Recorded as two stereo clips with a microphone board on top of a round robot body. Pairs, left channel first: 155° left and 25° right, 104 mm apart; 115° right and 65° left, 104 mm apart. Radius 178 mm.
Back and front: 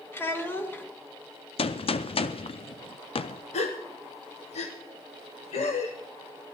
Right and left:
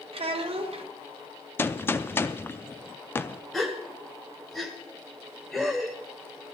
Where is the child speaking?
90° left, 1.6 m.